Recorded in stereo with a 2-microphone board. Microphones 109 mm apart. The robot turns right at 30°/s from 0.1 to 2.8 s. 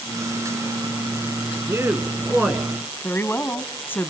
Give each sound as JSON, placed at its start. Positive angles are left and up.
{"t": 1.7, "sound": "a man speaking", "azimuth_deg": -30, "distance_m": 1.9}
{"t": 3.0, "sound": "a woman speaking", "side_deg": 20, "distance_m": 1.3}